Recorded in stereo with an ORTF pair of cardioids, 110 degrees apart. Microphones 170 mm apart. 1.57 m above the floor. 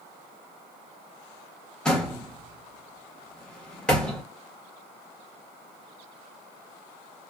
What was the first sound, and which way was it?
A door slam, 5° left.